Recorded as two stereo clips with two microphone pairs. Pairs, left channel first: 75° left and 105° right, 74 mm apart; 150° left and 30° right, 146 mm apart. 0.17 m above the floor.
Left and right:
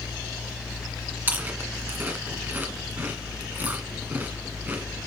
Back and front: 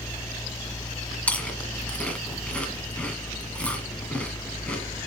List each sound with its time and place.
1.3 s chewing: 140° right, 1.7 m